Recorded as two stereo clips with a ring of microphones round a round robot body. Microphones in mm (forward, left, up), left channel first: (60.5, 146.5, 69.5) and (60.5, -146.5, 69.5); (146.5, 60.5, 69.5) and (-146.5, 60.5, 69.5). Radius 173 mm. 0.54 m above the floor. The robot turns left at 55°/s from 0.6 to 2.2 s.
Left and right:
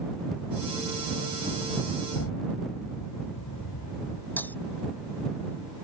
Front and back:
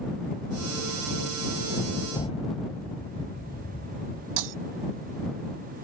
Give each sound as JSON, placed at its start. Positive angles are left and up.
{"t": 2.1, "sound": "an explosion", "azimuth_deg": 75}
{"t": 4.4, "sound": "breaking glass", "azimuth_deg": 175}